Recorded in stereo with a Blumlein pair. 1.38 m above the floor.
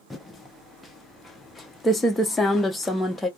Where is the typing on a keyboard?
10° left, 0.7 m.